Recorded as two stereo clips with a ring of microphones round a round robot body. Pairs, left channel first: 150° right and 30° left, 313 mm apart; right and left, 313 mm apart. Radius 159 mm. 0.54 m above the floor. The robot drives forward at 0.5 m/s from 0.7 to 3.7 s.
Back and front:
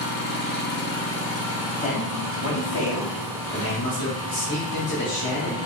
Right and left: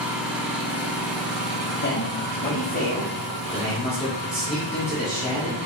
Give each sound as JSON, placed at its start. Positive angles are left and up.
{"t": 0.0, "sound": "an engine running", "azimuth_deg": 175, "distance_m": 0.8}
{"t": 1.8, "sound": "a man speaking", "azimuth_deg": -100, "distance_m": 0.8}